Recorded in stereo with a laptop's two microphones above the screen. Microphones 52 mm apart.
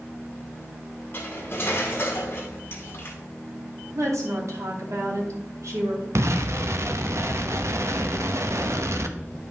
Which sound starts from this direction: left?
Cutlery clinking, at 1.1 s.